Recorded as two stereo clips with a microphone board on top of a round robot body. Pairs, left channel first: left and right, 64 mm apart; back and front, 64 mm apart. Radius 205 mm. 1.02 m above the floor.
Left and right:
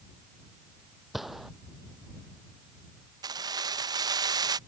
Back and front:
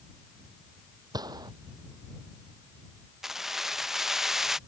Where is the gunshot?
5° right.